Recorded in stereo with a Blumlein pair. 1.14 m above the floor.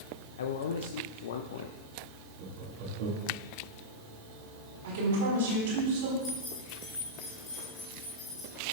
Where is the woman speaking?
60° right, 3 m.